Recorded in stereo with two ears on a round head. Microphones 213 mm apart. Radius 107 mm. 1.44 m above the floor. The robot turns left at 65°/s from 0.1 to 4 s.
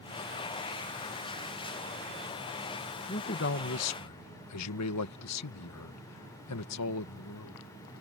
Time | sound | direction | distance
3.1 | a man speaking | 150° left | ?